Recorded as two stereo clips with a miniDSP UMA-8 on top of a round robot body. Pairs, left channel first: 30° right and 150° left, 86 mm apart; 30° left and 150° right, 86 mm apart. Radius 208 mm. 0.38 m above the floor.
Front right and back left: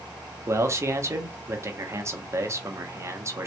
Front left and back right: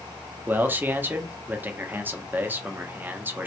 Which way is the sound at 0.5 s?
165° left.